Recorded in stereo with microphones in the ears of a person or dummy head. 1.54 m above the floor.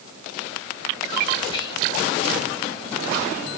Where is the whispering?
30° left (ahead or behind), 4.5 m.